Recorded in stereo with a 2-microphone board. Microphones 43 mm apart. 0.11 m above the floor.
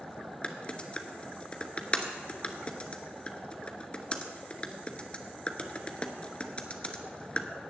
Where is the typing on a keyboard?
30° left (ahead or behind), 1.0 m.